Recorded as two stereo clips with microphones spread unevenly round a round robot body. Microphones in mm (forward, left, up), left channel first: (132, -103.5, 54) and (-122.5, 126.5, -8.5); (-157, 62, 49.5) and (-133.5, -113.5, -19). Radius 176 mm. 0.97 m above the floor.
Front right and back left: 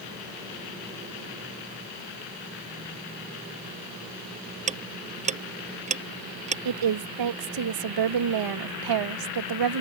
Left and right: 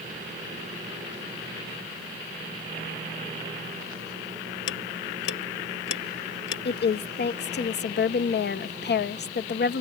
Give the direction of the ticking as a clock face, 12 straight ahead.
10 o'clock.